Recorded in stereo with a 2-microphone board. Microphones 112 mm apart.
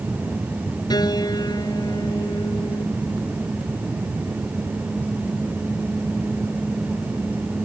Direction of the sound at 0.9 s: 35° left (ahead or behind).